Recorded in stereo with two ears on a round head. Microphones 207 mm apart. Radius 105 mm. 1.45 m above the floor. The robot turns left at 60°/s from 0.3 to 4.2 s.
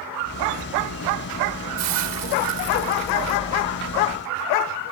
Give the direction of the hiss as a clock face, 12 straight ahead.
2 o'clock.